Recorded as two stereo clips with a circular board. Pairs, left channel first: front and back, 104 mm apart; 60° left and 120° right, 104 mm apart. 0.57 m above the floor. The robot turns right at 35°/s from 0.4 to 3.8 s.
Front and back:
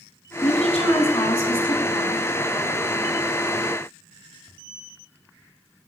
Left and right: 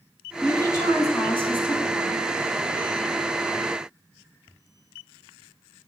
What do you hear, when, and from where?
0.4 s a woman speaking: 10° right, 4 m; by 2.2 s 50° left, 4 m